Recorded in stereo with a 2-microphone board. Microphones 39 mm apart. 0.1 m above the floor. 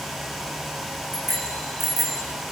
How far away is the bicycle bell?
About 5.5 m.